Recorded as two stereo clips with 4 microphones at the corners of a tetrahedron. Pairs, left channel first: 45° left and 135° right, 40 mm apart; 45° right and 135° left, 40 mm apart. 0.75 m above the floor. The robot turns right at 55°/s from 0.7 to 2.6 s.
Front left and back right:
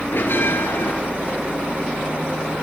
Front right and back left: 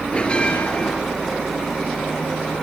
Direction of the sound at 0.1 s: 15° left.